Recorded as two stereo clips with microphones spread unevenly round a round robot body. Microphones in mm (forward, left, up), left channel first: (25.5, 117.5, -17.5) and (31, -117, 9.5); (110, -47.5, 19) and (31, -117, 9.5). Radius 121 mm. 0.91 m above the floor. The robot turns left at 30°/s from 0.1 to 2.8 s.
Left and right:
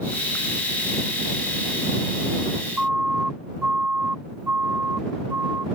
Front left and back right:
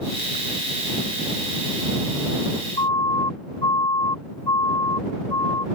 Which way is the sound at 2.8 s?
Straight ahead.